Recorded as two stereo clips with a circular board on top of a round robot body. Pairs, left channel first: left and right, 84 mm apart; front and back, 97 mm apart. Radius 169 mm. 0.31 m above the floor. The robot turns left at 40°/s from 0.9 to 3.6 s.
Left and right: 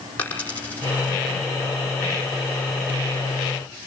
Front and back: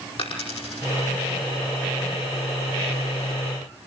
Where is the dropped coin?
20° left, 5 m; by 1.2 s 10° left, 5 m.